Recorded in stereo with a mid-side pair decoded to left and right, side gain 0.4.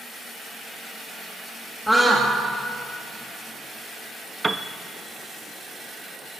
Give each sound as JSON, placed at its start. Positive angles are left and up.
{"t": 1.9, "sound": "a scream", "azimuth_deg": 0, "distance_m": 2.0}
{"t": 4.4, "sound": "a piano", "azimuth_deg": -20, "distance_m": 0.8}